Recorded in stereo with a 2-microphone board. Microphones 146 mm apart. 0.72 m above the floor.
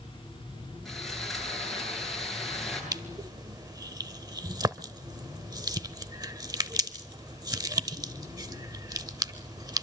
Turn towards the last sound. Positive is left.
turn(degrees=-30)  # may be behind; listen again after turning